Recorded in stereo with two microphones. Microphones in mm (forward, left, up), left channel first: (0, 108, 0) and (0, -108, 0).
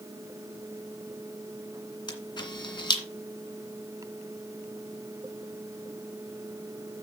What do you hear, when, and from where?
2.1 s a camera shutter: 20° left (ahead or behind), 2 m